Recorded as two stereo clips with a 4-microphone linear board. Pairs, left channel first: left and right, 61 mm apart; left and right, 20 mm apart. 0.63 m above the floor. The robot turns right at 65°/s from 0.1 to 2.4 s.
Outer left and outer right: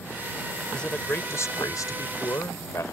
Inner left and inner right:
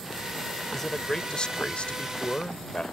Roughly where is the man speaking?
Ahead.